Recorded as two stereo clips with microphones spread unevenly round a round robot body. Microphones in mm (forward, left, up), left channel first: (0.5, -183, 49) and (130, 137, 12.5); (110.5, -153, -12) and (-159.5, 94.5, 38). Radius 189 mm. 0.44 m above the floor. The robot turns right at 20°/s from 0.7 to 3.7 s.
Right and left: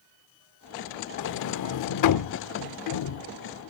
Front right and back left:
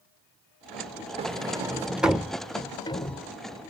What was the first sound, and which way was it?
A sliding door, 145° right.